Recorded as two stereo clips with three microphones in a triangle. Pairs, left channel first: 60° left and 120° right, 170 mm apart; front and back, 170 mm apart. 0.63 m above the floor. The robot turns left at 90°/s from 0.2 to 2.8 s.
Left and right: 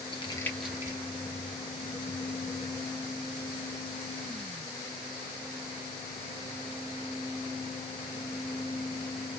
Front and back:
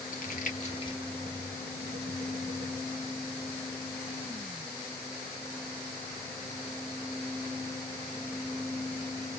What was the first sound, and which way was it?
Crumpling, 5° left.